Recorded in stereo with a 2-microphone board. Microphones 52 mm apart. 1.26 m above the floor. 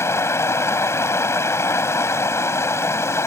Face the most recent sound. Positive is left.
turn(degrees=65)  # may be behind; listen again after turning